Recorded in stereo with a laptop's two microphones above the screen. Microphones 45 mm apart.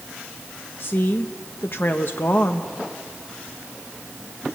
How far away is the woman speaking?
About 0.8 m.